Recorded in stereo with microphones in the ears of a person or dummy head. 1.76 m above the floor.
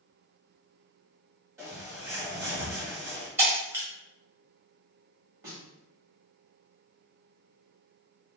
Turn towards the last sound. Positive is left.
turn(degrees=-15)  # may be behind; listen again after turning